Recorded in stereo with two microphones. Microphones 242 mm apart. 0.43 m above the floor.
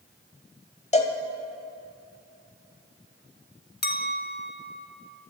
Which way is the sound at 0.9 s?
30° left (ahead or behind).